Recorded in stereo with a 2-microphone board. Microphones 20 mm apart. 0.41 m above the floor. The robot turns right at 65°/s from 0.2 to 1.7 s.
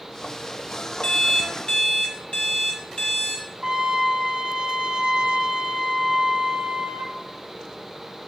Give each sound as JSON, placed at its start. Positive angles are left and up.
{"t": 1.0, "sound": "an alarm clock", "azimuth_deg": 70, "distance_m": 1.1}
{"t": 3.6, "sound": "a trumpet", "side_deg": -45, "distance_m": 1.4}